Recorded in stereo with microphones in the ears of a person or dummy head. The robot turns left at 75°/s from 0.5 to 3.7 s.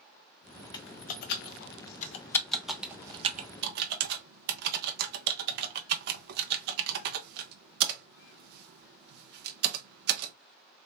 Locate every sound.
0.7 s typing on a keyboard: 30° left (ahead or behind), 0.6 m; by 10.3 s 60° right (ahead or behind), 0.6 m